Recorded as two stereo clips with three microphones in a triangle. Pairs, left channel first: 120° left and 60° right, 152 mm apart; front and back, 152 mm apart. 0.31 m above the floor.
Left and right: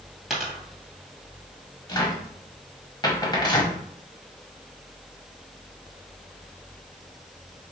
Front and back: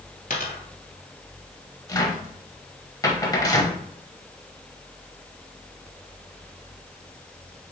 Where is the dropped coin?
30° left, 1.5 m.